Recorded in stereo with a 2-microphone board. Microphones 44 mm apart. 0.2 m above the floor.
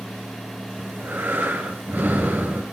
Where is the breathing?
50° right (ahead or behind), 3.5 m.